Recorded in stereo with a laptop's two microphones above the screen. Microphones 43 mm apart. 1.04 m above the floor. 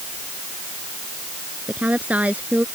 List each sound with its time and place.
1.7 s a woman speaking: 35° right (ahead or behind)